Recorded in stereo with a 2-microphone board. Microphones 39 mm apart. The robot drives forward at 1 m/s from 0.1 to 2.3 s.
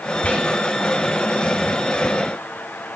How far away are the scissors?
I don't hear scissors.